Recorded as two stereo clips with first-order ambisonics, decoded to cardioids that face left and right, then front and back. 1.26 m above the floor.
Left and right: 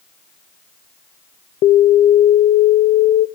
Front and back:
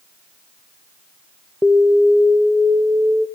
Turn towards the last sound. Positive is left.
turn(degrees=95)